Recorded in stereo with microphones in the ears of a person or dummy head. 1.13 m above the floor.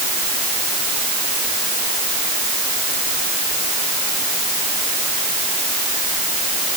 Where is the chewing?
No chewing in this recording.